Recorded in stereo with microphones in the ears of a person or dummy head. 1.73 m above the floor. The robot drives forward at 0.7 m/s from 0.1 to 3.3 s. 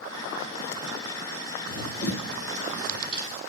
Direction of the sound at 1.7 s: 65° left (ahead or behind).